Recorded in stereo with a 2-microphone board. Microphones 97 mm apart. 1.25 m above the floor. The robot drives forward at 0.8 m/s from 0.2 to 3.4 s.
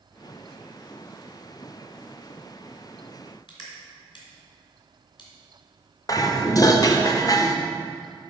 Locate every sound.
3.5 s crushing: 55° left (ahead or behind), 2.5 m
6.1 s dishes clattering: 40° left (ahead or behind), 0.6 m